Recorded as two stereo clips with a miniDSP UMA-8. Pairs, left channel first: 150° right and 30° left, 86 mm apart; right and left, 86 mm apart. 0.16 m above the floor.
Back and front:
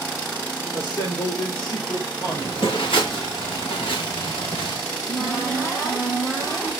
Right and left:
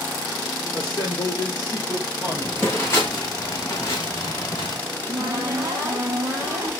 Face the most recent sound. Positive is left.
turn(degrees=155)